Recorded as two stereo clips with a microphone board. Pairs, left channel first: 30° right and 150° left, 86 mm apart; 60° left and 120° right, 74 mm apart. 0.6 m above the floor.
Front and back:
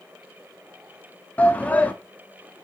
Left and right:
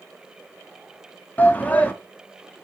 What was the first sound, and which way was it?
A shout, 20° left.